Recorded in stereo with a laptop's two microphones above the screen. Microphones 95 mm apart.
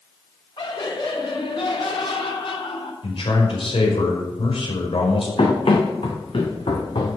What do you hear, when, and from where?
0.6 s laughter: 60° left (ahead or behind), 3 m; by 2.9 s 80° left, 3.5 m
3.0 s a man speaking: 75° left (ahead or behind), 5 m
5.4 s running footsteps: 75° left (ahead or behind), 4 m; by 7.2 s 65° left (ahead or behind), 3.5 m